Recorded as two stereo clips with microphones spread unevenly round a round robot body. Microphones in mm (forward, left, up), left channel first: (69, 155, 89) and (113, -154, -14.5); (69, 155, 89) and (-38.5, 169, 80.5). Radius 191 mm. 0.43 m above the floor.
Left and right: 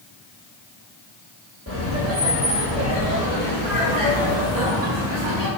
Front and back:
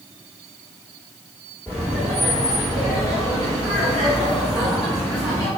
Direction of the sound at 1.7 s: 90° right.